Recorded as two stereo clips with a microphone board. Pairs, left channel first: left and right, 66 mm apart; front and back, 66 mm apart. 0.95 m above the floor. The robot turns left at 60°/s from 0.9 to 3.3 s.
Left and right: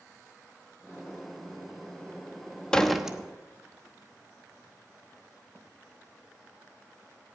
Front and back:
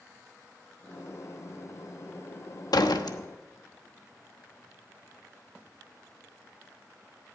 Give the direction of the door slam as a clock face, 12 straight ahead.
12 o'clock.